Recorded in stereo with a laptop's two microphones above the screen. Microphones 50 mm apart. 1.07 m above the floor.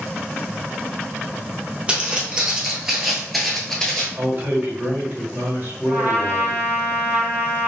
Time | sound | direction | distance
1.9 | footsteps | 20° right (ahead or behind) | 1.4 m
4.2 | a man speaking | 55° right (ahead or behind) | 1.8 m
5.9 | a trumpet | 60° right (ahead or behind) | 1.6 m